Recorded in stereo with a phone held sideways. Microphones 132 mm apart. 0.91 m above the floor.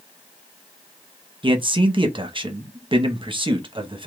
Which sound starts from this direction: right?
A man speaking, at 1.4 s.